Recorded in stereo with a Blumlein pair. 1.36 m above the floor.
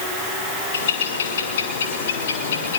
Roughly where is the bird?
Ahead left.